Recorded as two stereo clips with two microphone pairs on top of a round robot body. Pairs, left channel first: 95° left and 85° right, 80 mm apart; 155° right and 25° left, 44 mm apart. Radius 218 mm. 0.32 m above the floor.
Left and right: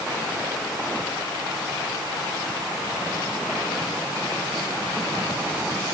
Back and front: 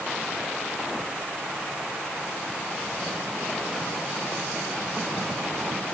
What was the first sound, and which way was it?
Only background noise.